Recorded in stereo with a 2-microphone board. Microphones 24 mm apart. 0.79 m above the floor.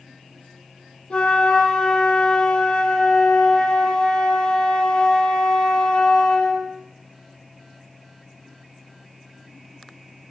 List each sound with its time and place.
1.1 s a flute: 50° left (ahead or behind), 2.5 m